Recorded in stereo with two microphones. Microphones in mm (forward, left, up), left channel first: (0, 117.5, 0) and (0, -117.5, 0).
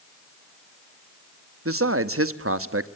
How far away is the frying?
I don't hear frying.